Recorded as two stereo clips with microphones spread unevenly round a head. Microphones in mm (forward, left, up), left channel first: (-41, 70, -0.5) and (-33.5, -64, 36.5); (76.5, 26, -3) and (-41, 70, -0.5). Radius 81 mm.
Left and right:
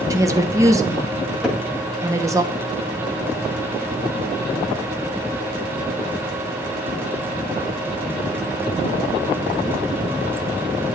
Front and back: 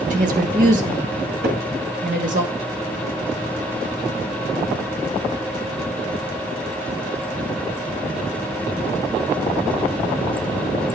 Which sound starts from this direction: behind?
A cupboard door, at 1.4 s.